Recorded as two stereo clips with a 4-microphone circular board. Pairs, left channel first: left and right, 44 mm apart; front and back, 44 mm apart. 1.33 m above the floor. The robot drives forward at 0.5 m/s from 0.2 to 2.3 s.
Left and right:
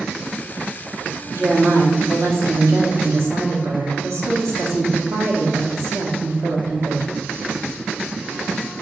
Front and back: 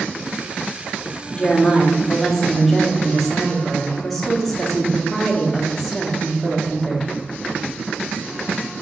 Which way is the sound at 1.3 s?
75° right.